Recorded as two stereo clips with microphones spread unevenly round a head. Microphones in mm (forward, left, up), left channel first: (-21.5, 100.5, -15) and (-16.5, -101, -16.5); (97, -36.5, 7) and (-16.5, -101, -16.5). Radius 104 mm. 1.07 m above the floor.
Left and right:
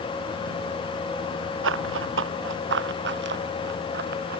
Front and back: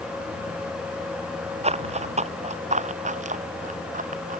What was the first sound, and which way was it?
Running footsteps, 115° right.